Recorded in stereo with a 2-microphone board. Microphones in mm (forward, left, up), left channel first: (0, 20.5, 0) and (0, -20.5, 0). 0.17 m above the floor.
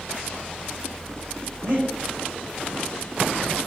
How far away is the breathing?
About 4 m.